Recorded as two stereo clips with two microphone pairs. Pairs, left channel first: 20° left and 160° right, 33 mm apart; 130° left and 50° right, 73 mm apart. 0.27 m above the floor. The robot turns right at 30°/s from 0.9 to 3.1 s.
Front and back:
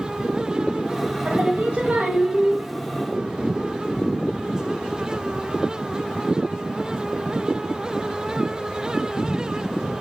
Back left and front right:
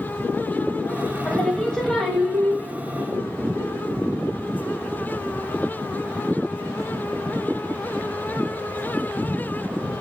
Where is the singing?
170° right, 0.5 m; by 2.6 s 130° right, 0.5 m.